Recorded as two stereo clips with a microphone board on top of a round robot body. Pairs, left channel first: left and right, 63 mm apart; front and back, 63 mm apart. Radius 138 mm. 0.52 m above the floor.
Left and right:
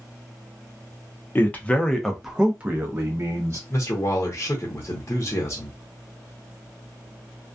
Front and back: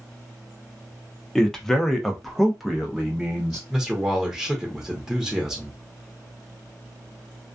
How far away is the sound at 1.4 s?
About 0.9 m.